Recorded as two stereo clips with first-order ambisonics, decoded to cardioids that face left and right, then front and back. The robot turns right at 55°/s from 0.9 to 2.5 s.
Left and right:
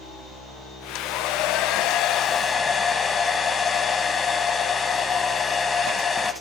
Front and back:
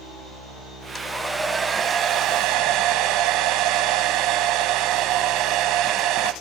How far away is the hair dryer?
About 0.7 m.